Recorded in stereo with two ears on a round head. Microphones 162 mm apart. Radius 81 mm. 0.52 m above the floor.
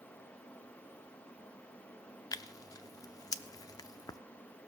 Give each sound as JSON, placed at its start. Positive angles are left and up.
{"t": 2.3, "sound": "tearing paper", "side_deg": 20, "distance_m": 0.5}